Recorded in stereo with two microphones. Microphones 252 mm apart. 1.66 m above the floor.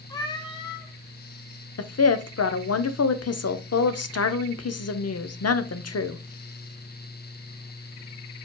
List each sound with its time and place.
0.1 s a cat meowing: 15° left (ahead or behind), 0.8 m
1.8 s a woman speaking: 75° left (ahead or behind), 0.6 m